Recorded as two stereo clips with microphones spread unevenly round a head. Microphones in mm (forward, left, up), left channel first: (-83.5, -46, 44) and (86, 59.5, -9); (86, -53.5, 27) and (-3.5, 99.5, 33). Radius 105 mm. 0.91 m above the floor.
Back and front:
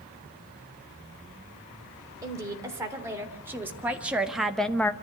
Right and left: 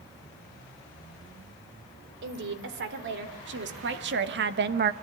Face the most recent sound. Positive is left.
turn(degrees=125)